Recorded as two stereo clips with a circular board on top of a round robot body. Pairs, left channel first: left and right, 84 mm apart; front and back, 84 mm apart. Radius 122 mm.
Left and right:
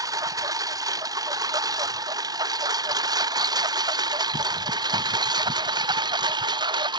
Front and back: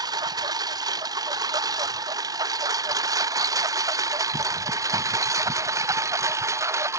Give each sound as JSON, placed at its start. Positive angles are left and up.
{"t": 0.0, "sound": "a lawn mower", "azimuth_deg": -135}